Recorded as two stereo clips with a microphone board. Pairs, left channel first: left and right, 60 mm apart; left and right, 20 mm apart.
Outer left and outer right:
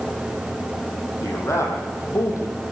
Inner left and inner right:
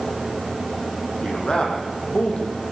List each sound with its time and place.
1.2 s a man speaking: 50° left (ahead or behind), 8.5 m; by 2.6 s 55° left (ahead or behind), 7 m